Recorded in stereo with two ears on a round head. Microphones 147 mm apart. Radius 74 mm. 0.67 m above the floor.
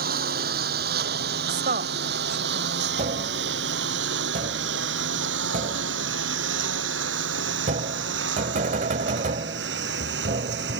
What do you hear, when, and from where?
0.0 s a lawn mower: 65° right (ahead or behind); by 10.8 s 75° right (ahead or behind)
1.5 s a woman speaking: 55° right (ahead or behind)
3.0 s tapping: 50° right (ahead or behind)